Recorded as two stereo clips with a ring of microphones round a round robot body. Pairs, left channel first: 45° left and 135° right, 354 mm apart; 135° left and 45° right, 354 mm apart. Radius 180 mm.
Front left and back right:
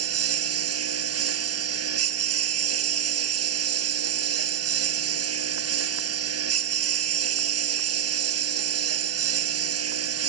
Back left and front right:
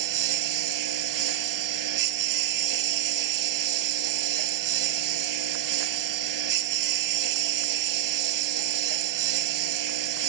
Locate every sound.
0.0 s a lawn mower: 85° right